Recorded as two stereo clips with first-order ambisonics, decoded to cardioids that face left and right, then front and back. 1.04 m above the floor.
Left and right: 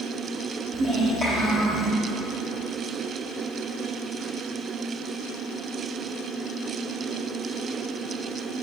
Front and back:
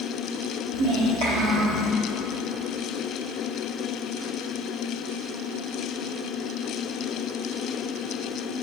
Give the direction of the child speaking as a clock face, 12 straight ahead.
5 o'clock.